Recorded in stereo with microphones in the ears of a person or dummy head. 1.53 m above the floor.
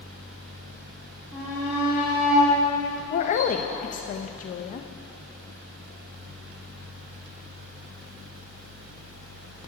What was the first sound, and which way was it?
A shout, 15° right (ahead or behind).